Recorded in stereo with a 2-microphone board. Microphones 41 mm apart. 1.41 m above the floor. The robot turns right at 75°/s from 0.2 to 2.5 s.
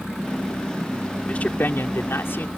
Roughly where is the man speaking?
Ahead left.